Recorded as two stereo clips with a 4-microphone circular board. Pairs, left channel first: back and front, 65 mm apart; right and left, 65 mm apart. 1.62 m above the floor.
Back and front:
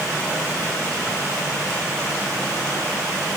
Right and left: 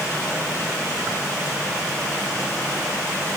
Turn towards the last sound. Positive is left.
No sound to turn to.